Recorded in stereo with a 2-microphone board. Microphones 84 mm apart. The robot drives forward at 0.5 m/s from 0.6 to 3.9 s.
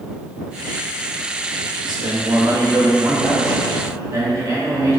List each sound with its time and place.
1.8 s a man speaking: 65° right (ahead or behind), 1.2 m; by 5.0 s 40° right (ahead or behind), 1.8 m